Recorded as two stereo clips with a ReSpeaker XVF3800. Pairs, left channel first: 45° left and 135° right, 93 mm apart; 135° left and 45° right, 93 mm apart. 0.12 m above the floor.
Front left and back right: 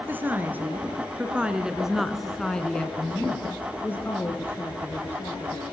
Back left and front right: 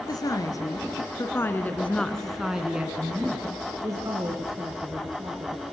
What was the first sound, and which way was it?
A woman speaking, 165° left.